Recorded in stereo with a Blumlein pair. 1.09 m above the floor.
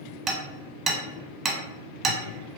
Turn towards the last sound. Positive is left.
turn(degrees=-20)